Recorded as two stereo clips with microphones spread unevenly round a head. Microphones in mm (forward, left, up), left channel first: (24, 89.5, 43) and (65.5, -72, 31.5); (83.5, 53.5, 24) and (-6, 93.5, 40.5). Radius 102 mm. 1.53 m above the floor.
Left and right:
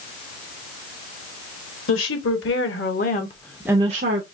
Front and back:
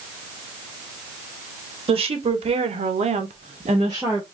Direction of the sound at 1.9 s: 130° left.